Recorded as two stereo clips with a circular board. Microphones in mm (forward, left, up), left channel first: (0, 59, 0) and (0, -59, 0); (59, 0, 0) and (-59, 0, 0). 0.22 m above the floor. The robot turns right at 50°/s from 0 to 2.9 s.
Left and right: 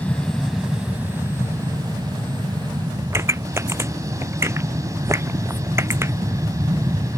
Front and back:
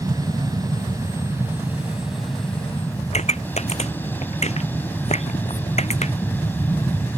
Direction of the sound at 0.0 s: 155° left.